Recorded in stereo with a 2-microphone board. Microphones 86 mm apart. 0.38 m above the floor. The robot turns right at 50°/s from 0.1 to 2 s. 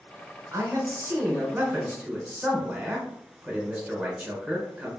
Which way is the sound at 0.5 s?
100° right.